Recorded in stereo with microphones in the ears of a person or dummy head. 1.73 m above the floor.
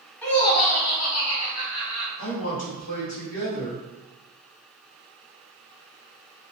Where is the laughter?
5° left (ahead or behind), 0.7 m; by 2.1 s 65° left (ahead or behind), 1.2 m.